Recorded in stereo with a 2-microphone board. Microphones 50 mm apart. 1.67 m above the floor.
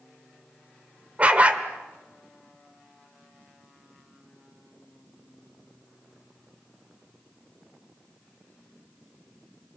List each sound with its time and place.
1.2 s a dog barking: 30° right (ahead or behind), 2.0 m